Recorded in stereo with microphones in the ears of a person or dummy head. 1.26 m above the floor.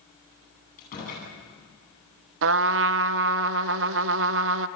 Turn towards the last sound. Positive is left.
turn(degrees=-65)  # may be behind; listen again after turning